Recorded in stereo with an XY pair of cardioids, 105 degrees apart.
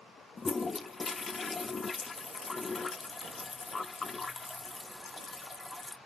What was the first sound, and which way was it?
A toilet flushing, 30° left.